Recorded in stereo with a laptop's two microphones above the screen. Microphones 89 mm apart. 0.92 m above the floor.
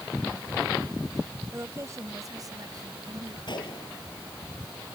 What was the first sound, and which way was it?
A woman speaking, 30° right (ahead or behind).